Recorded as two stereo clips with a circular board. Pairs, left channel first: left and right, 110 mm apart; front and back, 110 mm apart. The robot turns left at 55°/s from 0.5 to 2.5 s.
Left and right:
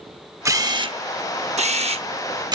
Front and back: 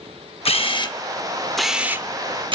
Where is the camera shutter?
30° right, 0.6 m; by 2.6 s 140° right, 0.6 m.